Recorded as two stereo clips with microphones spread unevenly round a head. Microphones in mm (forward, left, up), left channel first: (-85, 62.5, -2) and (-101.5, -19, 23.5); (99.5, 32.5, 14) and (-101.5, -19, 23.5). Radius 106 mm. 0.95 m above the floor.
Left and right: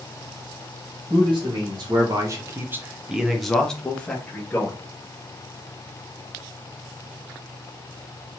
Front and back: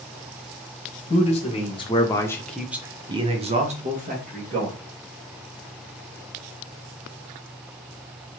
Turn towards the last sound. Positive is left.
turn(degrees=140)